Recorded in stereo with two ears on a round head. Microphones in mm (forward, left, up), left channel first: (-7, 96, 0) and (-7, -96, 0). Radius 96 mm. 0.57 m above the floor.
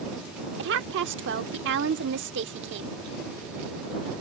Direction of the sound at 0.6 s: 60° right (ahead or behind).